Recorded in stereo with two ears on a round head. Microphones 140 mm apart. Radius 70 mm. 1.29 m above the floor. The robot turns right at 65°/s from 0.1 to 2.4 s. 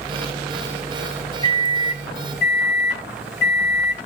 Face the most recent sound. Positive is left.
turn(degrees=95)